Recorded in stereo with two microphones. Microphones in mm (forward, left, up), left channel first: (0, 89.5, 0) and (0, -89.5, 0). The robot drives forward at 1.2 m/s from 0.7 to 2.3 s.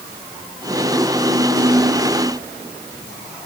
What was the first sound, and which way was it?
Only background noise.